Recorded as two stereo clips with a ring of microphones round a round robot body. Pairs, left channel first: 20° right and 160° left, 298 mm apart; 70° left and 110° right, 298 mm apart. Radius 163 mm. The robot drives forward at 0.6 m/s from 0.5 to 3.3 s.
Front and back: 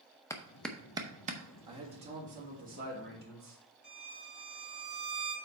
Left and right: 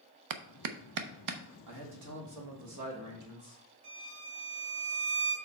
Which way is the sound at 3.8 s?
115° right.